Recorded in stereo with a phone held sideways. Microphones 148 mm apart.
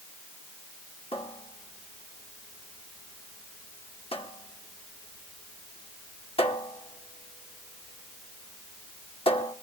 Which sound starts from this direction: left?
A cupboard door, at 1.1 s.